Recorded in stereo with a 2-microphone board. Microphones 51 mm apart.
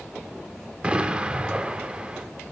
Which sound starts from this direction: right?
An explosion, at 0.8 s.